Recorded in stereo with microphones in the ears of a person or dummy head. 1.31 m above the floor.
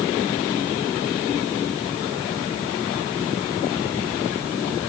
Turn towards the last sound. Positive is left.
No sound to turn to.